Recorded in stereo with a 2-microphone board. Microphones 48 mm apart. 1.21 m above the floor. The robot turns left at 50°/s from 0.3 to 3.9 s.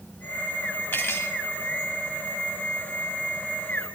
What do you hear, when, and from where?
0.9 s cutlery clinking: 50° left (ahead or behind), 2.5 m; by 1.3 s 70° left (ahead or behind), 2.5 m